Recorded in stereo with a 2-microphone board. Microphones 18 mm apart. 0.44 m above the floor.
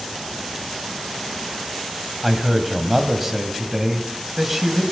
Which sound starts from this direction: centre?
A man speaking, at 2.2 s.